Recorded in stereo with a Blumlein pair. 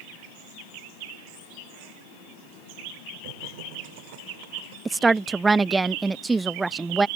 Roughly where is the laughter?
Ahead right.